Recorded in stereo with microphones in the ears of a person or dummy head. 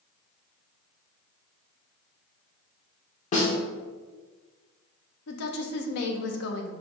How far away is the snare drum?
About 0.8 m.